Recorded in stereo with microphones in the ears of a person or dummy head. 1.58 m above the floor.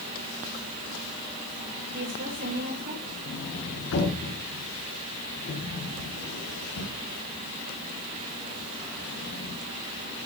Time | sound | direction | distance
1.9 | a woman speaking | 45° right (ahead or behind) | 7 m
3.3 | a sliding door | 60° left (ahead or behind) | 4.5 m